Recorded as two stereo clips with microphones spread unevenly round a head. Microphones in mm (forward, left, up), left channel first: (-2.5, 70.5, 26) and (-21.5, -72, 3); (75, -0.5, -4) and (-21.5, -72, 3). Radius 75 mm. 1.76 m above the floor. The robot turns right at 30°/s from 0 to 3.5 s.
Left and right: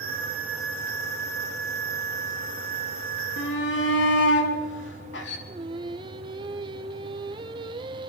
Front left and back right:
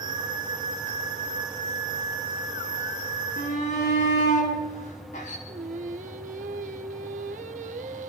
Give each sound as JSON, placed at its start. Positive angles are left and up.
{"t": 3.4, "sound": "a shout", "azimuth_deg": 80, "distance_m": 5.5}
{"t": 5.5, "sound": "singing", "azimuth_deg": -160, "distance_m": 1.3}